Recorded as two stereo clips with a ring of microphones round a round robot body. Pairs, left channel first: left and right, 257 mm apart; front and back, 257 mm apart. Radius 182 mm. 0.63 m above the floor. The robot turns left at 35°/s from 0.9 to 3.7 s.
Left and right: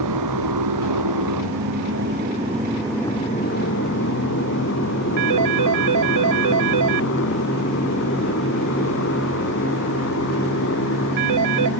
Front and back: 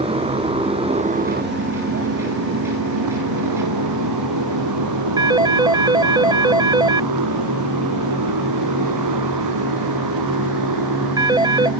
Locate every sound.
0.0 s a motorcycle: 110° right; by 11.8 s 150° left
5.2 s a phone ringing: 105° right